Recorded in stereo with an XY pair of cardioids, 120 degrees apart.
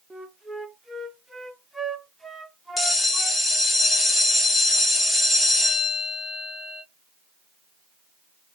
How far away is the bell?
About 0.9 m.